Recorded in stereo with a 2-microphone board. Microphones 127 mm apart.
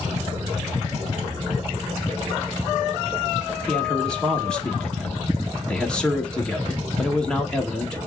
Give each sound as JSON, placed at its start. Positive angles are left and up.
{"t": 3.7, "sound": "a man speaking", "side_deg": 5, "distance_m": 1.0}